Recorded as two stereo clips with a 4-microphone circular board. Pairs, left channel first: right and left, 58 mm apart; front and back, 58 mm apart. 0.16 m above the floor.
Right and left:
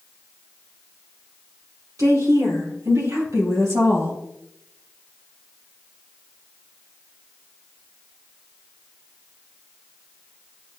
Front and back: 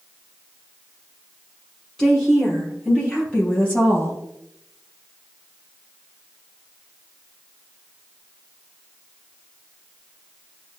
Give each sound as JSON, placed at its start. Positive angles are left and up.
{"t": 2.0, "sound": "a woman speaking", "azimuth_deg": 80, "distance_m": 4.0}